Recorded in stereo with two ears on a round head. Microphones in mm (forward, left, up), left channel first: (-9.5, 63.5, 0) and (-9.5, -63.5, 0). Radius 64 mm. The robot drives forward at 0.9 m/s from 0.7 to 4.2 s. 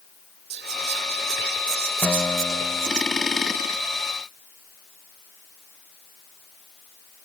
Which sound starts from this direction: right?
Whispering, at 0.5 s.